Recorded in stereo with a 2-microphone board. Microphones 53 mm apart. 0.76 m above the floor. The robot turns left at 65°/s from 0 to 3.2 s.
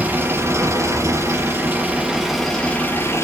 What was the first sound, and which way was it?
An engine running, 25° right.